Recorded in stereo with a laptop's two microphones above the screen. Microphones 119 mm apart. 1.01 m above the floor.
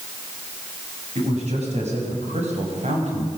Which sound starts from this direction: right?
A man speaking, at 1.1 s.